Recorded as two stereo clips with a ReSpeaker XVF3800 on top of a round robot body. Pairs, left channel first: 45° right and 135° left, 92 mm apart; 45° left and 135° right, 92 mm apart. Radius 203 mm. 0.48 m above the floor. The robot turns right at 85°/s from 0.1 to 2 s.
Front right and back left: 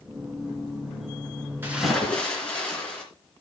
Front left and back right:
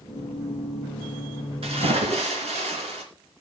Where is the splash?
155° right, 3 m; by 3.0 s 125° right, 3 m.